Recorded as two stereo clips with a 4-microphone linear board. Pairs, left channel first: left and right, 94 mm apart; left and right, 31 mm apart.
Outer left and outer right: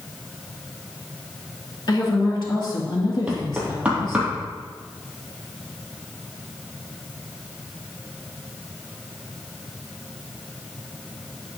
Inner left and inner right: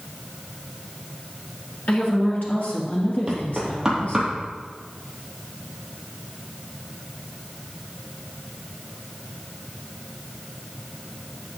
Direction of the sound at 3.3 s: 15° right (ahead or behind).